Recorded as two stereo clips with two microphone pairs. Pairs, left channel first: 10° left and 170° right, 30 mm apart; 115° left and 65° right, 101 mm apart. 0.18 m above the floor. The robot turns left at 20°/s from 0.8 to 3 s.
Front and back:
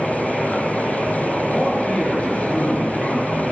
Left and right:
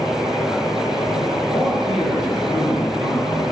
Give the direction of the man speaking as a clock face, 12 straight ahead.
9 o'clock.